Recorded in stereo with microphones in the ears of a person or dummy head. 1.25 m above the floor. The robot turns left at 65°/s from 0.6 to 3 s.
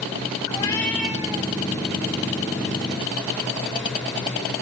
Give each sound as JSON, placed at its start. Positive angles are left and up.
{"t": 0.5, "sound": "a cat meowing", "azimuth_deg": 25, "distance_m": 2.5}